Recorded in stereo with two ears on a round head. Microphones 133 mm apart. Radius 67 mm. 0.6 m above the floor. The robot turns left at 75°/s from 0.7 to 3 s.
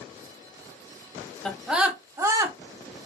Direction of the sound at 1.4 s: 5° left (ahead or behind).